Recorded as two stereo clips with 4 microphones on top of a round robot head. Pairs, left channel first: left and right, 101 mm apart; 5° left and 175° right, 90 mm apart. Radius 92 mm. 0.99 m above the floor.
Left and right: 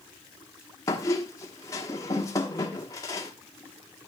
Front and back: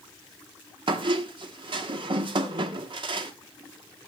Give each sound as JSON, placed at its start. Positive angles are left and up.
{"t": 0.9, "sound": "a squeak", "azimuth_deg": 155, "distance_m": 1.2}